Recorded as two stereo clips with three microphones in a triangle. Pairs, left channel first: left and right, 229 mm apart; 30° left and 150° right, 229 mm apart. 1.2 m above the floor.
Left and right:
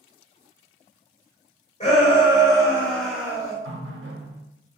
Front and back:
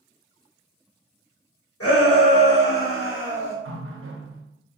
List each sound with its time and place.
1.8 s a shout: 30° left, 1.4 m; by 3.5 s 20° right, 0.9 m
3.6 s a running tap: 125° right, 0.6 m